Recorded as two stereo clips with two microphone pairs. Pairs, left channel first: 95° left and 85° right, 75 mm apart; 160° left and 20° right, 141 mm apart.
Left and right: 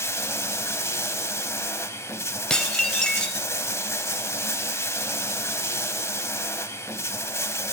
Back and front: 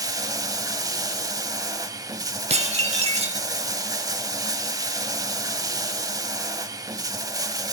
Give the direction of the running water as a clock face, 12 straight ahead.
10 o'clock.